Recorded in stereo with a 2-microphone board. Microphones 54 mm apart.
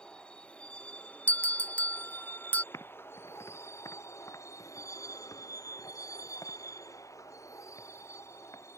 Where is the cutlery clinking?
I don't hear cutlery clinking.